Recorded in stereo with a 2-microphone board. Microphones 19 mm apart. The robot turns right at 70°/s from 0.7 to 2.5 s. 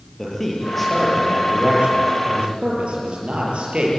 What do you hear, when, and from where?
0.2 s a man speaking: 165° left, 7.5 m; by 3.9 s 65° right, 7.5 m